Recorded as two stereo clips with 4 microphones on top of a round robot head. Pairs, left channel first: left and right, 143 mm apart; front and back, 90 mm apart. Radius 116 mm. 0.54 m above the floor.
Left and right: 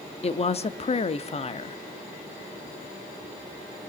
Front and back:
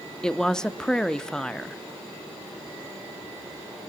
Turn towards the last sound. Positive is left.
turn(degrees=80)